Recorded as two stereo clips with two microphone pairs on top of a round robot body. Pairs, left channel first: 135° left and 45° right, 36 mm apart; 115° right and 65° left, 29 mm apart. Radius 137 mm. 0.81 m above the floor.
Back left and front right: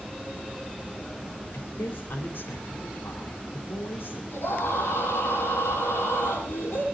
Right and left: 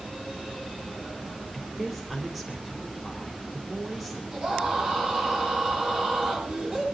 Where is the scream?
110° left, 10 m.